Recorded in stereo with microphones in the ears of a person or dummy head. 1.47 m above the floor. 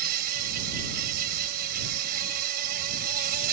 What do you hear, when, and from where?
0.0 s an insect: 55° right (ahead or behind)